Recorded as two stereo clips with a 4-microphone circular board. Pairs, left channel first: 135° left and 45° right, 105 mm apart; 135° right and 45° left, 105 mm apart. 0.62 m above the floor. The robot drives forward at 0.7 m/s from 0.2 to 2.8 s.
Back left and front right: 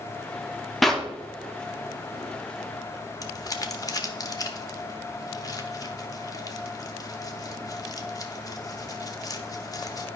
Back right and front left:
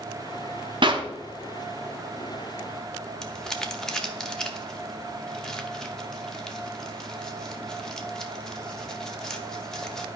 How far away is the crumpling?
About 0.9 m.